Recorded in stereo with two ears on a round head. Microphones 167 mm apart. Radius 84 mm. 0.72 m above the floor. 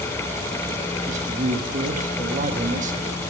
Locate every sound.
1.1 s a man speaking: 40° right (ahead or behind), 1.2 m